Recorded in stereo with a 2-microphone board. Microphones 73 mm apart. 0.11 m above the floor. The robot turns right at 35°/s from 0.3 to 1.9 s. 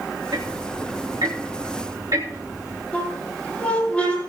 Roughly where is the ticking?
Behind right.